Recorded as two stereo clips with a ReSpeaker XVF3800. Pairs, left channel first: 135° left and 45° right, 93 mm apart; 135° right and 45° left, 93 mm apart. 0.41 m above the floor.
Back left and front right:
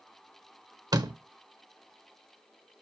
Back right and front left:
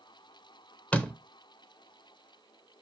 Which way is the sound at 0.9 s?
65° right.